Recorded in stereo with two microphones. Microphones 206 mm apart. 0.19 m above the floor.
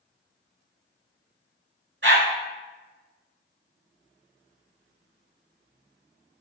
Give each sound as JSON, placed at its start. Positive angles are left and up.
{"t": 2.0, "sound": "a dog barking", "side_deg": -65, "distance_m": 0.5}